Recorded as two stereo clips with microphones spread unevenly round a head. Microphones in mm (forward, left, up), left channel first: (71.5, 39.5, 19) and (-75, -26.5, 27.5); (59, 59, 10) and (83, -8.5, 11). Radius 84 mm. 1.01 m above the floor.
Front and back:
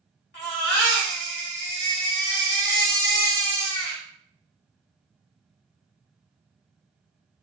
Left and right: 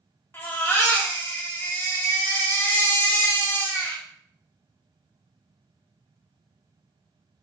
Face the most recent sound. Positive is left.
turn(degrees=45)